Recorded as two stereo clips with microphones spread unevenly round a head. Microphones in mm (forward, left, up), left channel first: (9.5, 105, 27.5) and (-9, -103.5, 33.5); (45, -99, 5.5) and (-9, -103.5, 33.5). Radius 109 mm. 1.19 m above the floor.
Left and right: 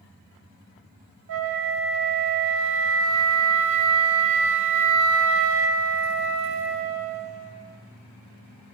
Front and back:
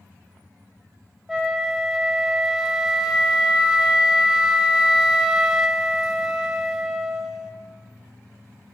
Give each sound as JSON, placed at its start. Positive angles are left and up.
{"t": 1.3, "sound": "a flute", "azimuth_deg": -80, "distance_m": 0.9}